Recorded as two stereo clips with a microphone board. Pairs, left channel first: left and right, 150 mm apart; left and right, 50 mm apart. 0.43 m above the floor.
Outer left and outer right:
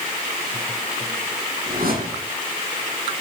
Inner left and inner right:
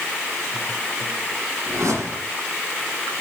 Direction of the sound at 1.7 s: 70° right (ahead or behind).